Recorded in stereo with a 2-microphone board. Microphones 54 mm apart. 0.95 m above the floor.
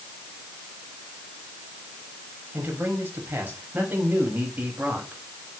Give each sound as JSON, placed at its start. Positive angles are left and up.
{"t": 2.5, "sound": "a man speaking", "side_deg": -40, "distance_m": 7.0}